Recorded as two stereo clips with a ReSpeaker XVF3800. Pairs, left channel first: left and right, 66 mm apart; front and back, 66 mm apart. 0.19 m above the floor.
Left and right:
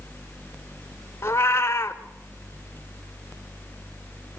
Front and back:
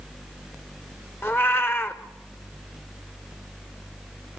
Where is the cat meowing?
45° left, 1.1 m.